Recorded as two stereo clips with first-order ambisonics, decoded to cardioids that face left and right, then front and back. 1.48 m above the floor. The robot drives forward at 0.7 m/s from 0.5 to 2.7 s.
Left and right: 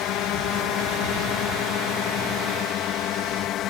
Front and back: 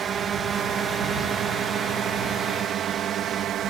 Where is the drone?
120° left; by 3.7 s 130° left.